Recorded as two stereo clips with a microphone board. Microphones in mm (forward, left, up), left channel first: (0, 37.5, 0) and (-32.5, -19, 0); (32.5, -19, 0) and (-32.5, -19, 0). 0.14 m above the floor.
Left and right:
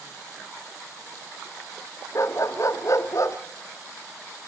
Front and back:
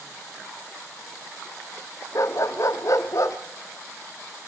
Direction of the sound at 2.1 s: 30° left.